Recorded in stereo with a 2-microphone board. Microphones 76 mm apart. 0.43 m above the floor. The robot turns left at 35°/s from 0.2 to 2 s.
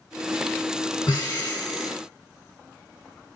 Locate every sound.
1.1 s breathing: 75° left, 1.5 m; by 1.9 s 45° left, 1.5 m